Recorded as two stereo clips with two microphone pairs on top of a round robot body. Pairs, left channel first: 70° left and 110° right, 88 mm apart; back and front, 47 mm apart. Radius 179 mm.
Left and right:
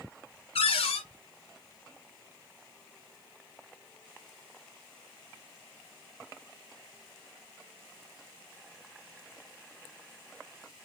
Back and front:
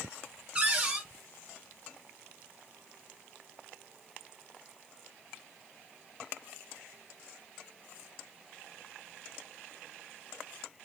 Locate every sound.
0.6 s a cupboard door: 65° left, 1.1 m